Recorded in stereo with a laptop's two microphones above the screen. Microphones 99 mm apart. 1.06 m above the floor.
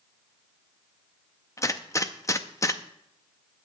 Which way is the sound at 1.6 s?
30° left (ahead or behind).